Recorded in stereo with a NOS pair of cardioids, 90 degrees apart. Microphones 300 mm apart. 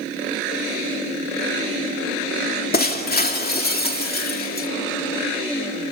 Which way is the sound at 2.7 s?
35° left.